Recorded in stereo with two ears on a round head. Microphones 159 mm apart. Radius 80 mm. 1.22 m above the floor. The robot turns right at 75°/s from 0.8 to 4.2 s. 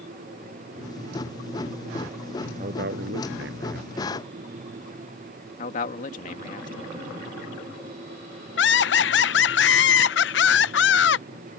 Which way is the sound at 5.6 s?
45° left (ahead or behind).